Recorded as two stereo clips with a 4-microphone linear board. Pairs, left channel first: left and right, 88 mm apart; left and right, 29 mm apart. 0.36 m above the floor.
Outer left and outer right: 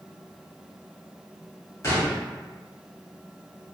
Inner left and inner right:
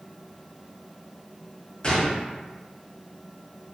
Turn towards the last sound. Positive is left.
turn(degrees=35)  # may be behind; listen again after turning